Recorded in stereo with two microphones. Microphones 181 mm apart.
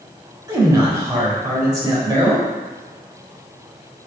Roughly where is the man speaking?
Right.